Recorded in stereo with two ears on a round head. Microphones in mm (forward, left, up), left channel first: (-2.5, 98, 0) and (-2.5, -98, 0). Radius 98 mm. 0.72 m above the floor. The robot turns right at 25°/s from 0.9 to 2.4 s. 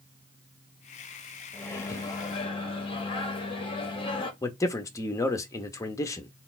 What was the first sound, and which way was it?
A microwave, 10° left (ahead or behind).